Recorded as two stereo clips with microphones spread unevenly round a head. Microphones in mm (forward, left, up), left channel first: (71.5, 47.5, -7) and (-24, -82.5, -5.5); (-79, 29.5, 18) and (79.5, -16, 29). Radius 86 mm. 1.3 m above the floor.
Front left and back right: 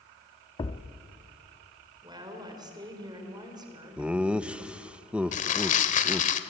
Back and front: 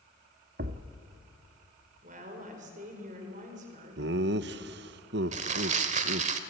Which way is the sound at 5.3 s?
20° left.